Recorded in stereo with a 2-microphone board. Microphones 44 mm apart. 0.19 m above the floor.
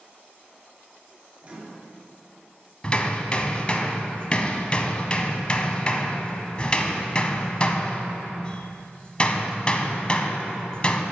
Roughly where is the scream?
No scream in this recording.